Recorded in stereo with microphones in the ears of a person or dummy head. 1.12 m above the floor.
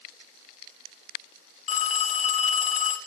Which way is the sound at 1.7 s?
45° left (ahead or behind).